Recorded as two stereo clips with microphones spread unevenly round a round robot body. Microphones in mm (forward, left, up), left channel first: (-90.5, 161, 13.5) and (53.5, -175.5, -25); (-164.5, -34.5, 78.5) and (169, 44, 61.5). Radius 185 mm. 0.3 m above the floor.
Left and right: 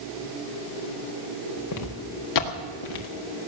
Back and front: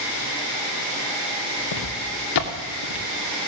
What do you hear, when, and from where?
1.7 s footsteps: 155° left, 2.5 m; by 3.1 s 140° left, 2.5 m